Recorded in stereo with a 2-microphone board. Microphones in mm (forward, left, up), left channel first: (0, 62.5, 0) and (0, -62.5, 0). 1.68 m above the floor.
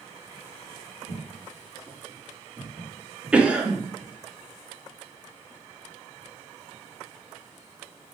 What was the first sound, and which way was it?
Footsteps, 20° right (ahead or behind).